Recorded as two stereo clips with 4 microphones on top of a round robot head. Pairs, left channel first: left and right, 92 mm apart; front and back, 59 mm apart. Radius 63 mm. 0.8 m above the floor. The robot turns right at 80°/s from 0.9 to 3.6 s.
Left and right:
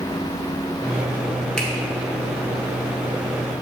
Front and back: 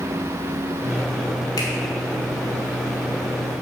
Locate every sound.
1.6 s a finger snap: 5° left, 1.8 m; by 1.7 s 15° left, 1.8 m